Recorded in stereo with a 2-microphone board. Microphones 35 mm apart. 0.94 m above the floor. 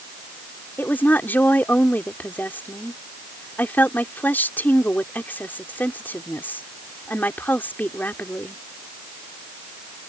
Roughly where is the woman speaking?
Left.